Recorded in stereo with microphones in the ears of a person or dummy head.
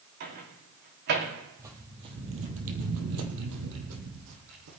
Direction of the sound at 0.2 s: 55° right (ahead or behind).